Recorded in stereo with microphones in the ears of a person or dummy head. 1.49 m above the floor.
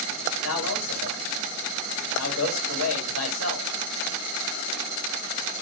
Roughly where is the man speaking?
Left.